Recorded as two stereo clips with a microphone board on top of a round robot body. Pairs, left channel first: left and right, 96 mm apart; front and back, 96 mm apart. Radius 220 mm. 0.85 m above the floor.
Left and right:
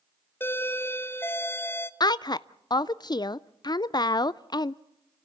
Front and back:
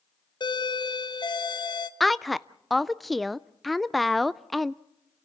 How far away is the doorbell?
About 1.3 m.